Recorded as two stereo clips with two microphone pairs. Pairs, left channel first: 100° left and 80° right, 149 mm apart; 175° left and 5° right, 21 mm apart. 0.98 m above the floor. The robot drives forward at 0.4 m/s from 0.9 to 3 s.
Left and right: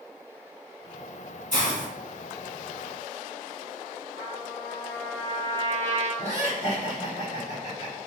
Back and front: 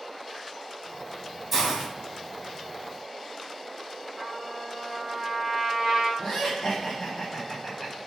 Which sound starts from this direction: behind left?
Laughter, at 6.2 s.